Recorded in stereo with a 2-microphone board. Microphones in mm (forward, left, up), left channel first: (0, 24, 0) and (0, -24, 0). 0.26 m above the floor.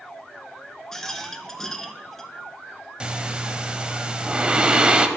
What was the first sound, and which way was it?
A rattle, 10° left (ahead or behind).